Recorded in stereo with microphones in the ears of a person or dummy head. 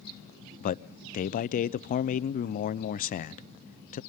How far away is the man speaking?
About 0.7 m.